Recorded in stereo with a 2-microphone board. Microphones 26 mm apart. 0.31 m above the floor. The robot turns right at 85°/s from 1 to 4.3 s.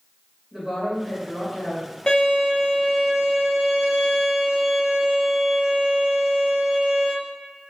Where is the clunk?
I don't hear a clunk.